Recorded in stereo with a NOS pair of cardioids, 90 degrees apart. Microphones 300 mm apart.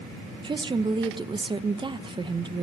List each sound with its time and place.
0.4 s a woman speaking: 15° right, 0.7 m